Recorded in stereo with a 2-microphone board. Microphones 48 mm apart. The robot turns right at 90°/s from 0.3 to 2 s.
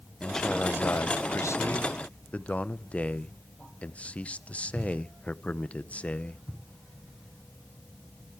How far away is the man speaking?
About 0.7 m.